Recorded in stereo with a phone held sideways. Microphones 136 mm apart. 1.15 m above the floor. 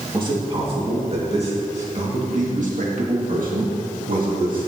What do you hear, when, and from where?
0.1 s a man speaking: 35° right (ahead or behind), 2.5 m; by 4.7 s 75° right (ahead or behind), 2.5 m